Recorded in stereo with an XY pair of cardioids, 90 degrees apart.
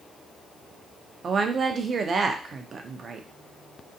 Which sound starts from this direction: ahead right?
A woman speaking, at 1.2 s.